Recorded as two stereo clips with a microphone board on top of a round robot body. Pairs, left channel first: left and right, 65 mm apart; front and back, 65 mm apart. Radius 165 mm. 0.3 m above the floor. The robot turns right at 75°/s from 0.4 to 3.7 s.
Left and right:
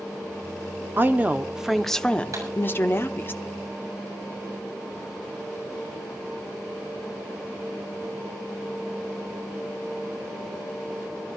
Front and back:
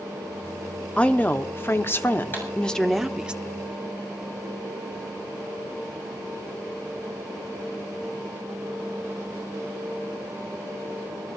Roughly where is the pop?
Ahead right.